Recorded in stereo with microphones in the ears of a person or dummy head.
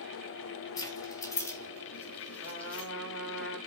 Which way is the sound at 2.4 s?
70° left (ahead or behind).